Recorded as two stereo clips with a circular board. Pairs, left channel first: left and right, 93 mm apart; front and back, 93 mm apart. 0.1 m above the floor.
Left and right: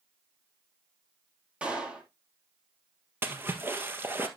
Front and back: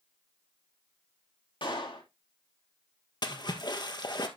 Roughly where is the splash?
Ahead right.